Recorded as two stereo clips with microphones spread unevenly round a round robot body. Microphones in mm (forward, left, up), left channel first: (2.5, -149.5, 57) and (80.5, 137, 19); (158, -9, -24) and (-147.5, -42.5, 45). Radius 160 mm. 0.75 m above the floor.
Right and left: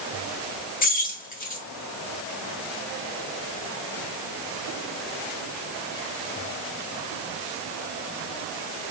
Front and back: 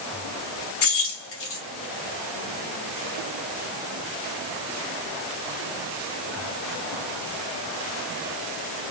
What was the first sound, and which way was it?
Keys jangling, 40° right.